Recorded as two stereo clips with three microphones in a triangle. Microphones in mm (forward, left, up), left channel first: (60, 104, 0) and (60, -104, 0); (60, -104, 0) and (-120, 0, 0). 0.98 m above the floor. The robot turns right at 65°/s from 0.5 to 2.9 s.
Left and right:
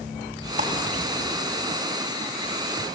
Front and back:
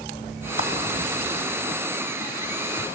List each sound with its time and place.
0.6 s a clap: 40° right, 5 m; by 0.7 s 30° right, 5 m